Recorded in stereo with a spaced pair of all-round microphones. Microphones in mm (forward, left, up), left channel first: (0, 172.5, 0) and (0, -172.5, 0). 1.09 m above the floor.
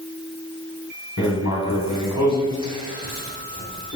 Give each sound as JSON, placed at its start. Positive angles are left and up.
{"t": 1.2, "sound": "writing", "side_deg": 55, "distance_m": 2.0}